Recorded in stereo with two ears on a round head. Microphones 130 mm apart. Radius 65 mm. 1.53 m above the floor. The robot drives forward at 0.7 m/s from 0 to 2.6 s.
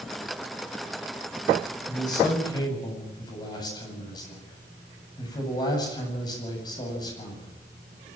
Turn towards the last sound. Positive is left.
turn(degrees=30)  # may be behind; listen again after turning